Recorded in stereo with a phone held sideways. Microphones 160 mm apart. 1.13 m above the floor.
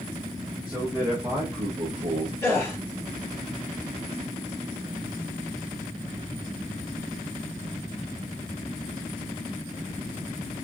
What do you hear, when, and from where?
0.7 s a man speaking: 5° right (ahead or behind), 1.2 m; by 2.3 s 70° right (ahead or behind), 0.5 m
2.4 s a gasp: 15° left (ahead or behind), 2 m